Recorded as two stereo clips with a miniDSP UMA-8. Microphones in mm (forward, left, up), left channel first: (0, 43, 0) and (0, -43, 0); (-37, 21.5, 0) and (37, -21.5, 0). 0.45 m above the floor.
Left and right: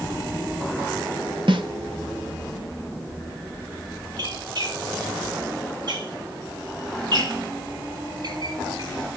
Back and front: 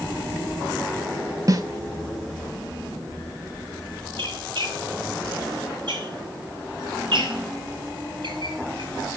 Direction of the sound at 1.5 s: 75° right.